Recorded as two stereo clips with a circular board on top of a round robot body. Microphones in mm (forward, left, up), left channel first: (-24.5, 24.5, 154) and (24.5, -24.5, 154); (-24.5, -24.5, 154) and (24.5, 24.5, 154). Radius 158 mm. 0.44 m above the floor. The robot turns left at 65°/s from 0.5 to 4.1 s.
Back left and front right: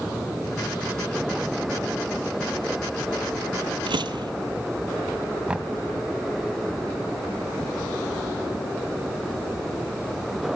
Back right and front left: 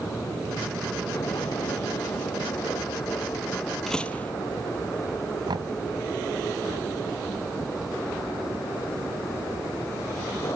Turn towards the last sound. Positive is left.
turn(degrees=30)